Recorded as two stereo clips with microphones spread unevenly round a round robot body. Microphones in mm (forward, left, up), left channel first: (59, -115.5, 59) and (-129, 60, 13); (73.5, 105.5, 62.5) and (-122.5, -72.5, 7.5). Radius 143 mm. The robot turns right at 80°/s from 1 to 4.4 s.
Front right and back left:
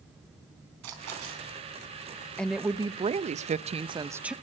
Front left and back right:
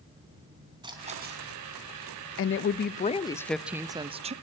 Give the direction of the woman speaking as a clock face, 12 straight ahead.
10 o'clock.